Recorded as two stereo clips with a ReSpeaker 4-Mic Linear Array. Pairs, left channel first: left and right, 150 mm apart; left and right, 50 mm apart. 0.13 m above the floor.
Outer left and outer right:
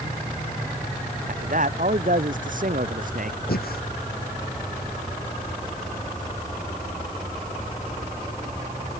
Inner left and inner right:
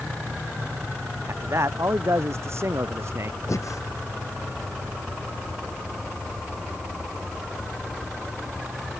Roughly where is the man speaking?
Right.